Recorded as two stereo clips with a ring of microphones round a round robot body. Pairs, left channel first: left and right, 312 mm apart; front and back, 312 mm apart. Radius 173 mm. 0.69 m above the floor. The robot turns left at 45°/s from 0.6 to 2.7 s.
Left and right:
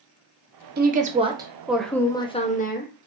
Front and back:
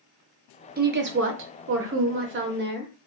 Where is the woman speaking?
135° right, 0.6 m; by 2.9 s 140° left, 0.6 m.